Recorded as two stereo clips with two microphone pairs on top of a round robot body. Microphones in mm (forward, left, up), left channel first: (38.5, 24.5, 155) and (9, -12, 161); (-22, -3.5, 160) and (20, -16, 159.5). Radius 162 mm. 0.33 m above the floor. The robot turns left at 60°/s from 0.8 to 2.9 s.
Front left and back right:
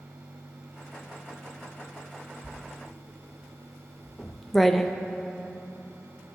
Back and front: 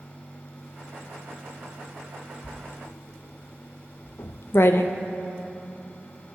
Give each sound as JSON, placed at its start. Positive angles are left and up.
{"t": 2.4, "sound": "writing", "azimuth_deg": 160, "distance_m": 0.5}